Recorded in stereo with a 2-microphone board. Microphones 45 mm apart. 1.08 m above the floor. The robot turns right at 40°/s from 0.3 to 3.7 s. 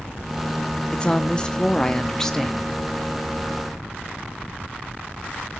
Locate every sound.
0.9 s a woman speaking: 25° left (ahead or behind), 0.7 m; by 2.8 s 10° left (ahead or behind), 0.7 m